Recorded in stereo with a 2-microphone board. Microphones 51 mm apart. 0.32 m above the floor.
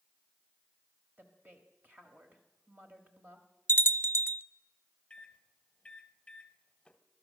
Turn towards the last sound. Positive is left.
turn(degrees=20)  # may be behind; listen again after turning